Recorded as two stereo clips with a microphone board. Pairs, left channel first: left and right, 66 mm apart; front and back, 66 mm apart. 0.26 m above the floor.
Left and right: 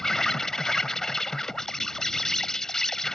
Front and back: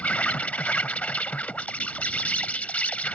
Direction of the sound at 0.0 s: 20° left.